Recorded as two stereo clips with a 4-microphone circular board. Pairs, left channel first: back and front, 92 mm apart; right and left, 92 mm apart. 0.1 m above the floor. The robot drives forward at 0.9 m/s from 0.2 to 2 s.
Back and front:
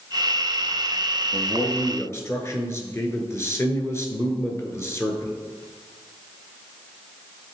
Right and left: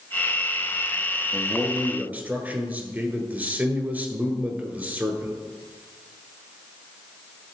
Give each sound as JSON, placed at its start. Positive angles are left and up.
{"t": 1.3, "sound": "a man speaking", "azimuth_deg": 100, "distance_m": 1.2}